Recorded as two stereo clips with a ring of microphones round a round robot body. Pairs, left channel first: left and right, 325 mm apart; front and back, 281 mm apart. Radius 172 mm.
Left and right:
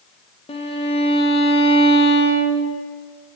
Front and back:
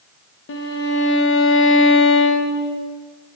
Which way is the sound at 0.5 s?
25° left.